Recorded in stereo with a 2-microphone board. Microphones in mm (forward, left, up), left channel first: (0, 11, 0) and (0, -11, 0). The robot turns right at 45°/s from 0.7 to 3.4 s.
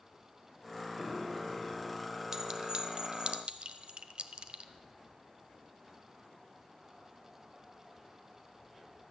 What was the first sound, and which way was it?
A piano, 20° left (ahead or behind).